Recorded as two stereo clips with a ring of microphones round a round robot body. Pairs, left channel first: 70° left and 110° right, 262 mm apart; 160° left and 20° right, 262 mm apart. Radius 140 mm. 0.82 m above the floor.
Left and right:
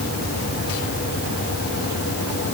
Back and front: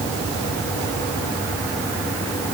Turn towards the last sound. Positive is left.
No sound to turn to.